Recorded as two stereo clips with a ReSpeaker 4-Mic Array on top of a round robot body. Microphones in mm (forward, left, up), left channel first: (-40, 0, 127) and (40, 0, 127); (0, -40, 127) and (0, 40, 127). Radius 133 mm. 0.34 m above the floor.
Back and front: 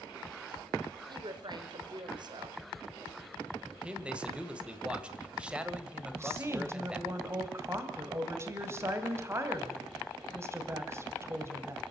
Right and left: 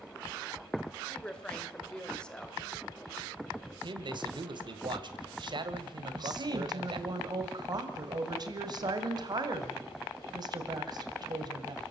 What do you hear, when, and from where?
1.1 s a woman speaking: 10° right, 2.5 m
3.8 s a man speaking: 75° left, 2 m
6.1 s a woman speaking: 60° left, 2.5 m